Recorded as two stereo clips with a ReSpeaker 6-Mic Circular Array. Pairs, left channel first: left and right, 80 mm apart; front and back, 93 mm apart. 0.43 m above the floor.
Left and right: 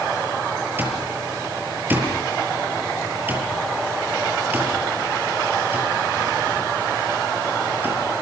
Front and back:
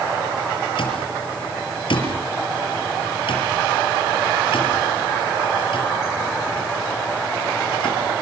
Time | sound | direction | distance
0.8 | an alarm clock | 25° right | 6.5 m